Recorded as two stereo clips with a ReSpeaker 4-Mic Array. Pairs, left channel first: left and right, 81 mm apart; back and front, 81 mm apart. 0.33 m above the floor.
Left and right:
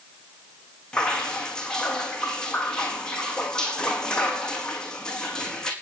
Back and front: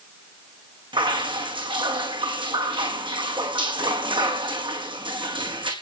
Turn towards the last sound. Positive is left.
turn(degrees=10)